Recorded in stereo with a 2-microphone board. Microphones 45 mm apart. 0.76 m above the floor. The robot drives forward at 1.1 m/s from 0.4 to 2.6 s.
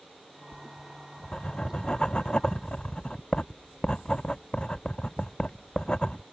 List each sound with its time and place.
0.5 s writing: 15° left (ahead or behind); by 6.2 s 20° left (ahead or behind)